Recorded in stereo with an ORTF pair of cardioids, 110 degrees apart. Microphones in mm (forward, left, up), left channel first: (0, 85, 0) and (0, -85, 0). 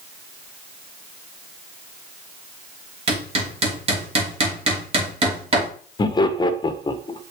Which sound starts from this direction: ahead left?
Laughter, at 6.0 s.